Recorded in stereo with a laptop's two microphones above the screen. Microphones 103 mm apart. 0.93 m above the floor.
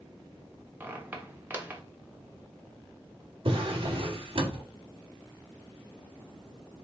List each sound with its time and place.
0.8 s a squeak: 20° right (ahead or behind), 0.8 m
3.5 s a drawer: 55° right (ahead or behind), 0.8 m